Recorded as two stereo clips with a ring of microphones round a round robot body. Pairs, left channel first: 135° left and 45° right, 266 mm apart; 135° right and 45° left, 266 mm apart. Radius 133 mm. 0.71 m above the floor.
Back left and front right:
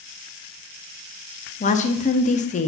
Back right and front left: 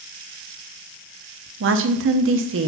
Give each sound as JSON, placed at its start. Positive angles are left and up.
{"t": 1.6, "sound": "a woman speaking", "azimuth_deg": 75, "distance_m": 0.9}